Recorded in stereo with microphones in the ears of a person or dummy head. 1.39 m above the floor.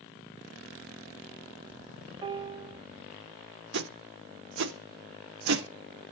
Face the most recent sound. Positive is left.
turn(degrees=-60)  # may be behind; listen again after turning